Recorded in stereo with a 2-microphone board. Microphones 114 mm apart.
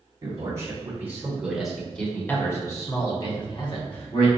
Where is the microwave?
I don't hear a microwave.